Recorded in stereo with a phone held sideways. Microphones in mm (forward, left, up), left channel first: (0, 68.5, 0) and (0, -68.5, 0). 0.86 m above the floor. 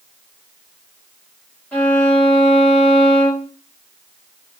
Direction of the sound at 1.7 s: 15° left (ahead or behind).